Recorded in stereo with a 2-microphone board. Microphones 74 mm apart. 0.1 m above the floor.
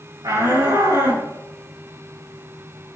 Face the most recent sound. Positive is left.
turn(degrees=-80)